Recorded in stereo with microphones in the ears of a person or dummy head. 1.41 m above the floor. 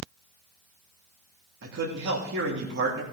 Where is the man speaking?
60° right (ahead or behind), 2.5 m.